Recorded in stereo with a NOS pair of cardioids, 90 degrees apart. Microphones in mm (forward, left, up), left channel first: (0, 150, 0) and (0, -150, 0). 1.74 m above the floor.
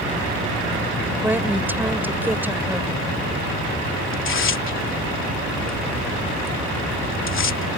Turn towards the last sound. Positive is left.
turn(degrees=45)